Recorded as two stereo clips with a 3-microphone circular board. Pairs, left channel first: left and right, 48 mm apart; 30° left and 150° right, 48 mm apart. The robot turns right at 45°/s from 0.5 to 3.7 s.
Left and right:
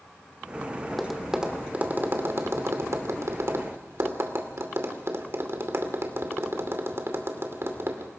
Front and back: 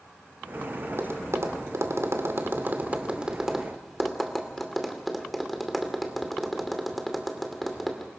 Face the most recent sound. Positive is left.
turn(degrees=-60)